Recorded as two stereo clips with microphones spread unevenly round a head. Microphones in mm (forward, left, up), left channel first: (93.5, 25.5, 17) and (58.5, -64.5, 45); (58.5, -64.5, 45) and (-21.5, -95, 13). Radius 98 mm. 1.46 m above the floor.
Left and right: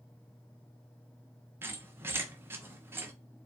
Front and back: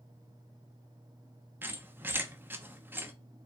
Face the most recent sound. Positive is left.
turn(degrees=-75)